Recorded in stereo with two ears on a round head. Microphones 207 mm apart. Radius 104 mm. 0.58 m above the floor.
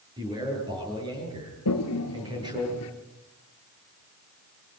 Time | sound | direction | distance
0.2 | a man speaking | 20° right (ahead or behind) | 10 m
1.6 | a toilet flushing | 80° left | 1.9 m